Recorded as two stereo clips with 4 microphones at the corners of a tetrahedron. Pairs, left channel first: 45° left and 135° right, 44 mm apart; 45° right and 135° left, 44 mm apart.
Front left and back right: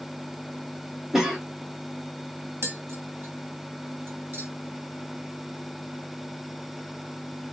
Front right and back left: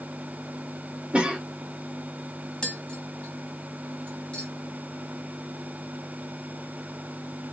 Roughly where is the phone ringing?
I don't hear a phone ringing.